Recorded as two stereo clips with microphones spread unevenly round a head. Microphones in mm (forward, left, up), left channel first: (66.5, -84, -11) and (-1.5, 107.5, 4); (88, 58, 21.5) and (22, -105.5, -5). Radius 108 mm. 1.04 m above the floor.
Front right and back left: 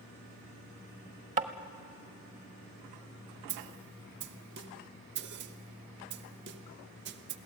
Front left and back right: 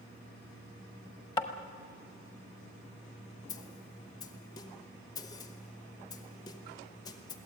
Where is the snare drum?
140° left, 0.7 m.